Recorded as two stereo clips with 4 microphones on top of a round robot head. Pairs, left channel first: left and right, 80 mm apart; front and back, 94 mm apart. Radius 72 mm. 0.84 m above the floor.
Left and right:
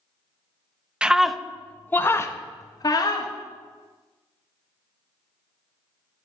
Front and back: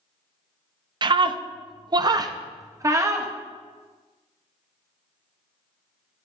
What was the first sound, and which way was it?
A scream, 165° right.